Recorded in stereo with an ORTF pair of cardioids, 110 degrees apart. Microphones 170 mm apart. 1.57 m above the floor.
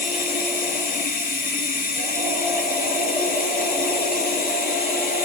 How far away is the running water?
About 6.5 m.